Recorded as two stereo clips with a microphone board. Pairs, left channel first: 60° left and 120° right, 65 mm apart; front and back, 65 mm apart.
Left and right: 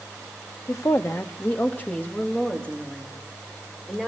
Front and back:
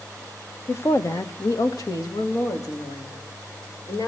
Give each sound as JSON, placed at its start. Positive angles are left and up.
{"t": 0.7, "sound": "a woman speaking", "azimuth_deg": 45, "distance_m": 1.2}